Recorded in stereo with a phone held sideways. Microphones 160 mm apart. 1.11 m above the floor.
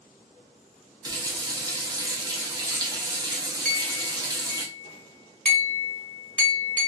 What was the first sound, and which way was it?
A running tap, 25° right (ahead or behind).